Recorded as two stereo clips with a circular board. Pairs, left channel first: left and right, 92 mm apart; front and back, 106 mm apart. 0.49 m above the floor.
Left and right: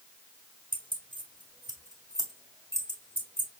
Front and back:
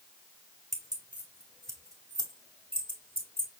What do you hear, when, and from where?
0.7 s keys jangling: 90° right, 1.4 m; by 3.5 s 165° right, 2 m